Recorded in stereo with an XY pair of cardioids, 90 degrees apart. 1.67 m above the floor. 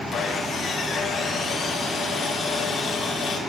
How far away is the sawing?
About 4.5 m.